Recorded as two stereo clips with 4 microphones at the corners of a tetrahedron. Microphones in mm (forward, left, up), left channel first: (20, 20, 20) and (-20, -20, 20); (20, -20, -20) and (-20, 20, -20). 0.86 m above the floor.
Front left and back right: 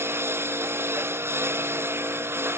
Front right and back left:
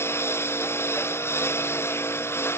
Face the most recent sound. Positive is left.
turn(degrees=-90)